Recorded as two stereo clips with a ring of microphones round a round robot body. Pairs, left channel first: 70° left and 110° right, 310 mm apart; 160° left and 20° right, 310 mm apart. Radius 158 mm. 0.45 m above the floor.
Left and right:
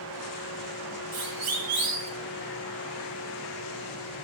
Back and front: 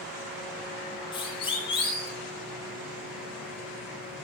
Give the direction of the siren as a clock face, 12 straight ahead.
4 o'clock.